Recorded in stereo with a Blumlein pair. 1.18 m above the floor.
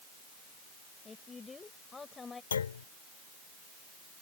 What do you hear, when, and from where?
1.1 s a woman speaking: 15° left
2.5 s a clunk: 70° left